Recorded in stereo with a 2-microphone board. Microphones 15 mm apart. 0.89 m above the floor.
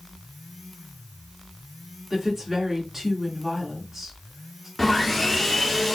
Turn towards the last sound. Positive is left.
turn(degrees=0)  # may be behind; listen again after turning